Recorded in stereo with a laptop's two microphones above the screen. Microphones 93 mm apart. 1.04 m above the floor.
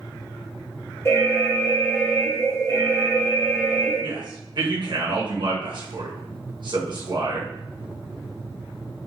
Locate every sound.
1.1 s an alarm: 30° left (ahead or behind), 1.5 m
4.0 s a man speaking: 55° right (ahead or behind), 1.0 m